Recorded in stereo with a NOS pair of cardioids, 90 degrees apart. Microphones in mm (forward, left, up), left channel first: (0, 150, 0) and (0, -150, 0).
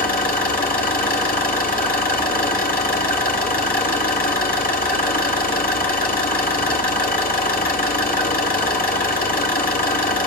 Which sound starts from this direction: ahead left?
An engine running, at 0.0 s.